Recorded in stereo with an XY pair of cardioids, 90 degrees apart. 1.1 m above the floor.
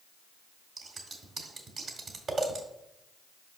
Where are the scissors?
55° right, 1.8 m.